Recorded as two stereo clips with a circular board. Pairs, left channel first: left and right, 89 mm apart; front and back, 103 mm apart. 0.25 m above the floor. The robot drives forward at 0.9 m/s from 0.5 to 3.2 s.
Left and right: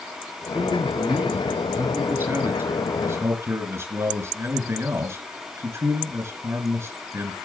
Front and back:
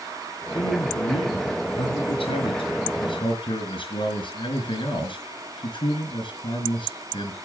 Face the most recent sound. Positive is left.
turn(degrees=-30)